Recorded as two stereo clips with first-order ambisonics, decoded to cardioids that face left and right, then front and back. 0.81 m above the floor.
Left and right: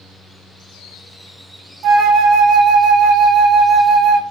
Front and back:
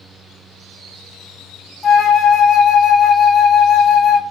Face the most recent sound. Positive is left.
turn(degrees=-65)